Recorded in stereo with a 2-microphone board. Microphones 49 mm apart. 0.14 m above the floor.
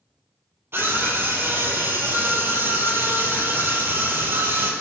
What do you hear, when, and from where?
0.7 s a scream: 50° right (ahead or behind), 4 m